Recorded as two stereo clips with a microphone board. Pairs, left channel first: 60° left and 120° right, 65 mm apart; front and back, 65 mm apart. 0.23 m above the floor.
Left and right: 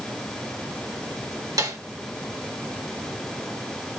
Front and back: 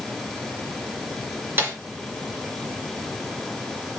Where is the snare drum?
120° right, 3.5 m.